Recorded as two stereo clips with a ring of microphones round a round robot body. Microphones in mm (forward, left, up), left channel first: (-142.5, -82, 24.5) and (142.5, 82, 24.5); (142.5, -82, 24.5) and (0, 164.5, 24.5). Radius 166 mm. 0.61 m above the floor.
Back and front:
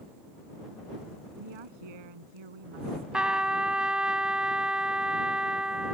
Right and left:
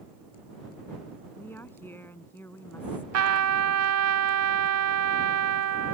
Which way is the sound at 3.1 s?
115° left.